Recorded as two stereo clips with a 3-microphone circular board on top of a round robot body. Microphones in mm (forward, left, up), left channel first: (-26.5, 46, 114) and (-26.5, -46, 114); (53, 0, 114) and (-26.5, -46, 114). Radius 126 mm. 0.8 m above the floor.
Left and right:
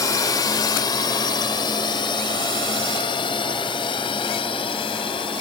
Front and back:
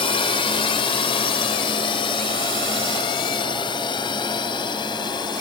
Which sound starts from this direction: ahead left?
A drone, at 0.0 s.